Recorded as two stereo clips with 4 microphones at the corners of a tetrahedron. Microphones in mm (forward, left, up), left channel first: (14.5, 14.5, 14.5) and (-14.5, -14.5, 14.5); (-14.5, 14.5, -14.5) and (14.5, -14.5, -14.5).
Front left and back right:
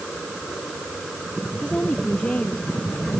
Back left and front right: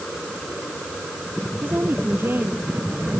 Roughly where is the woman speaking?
Ahead.